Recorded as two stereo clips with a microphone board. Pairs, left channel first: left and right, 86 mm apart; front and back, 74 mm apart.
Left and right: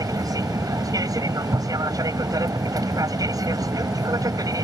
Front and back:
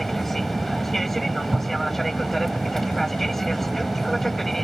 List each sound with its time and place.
0.0 s an aircraft: 85° right